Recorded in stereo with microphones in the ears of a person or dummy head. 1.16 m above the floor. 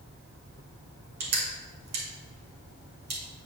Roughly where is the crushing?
Right.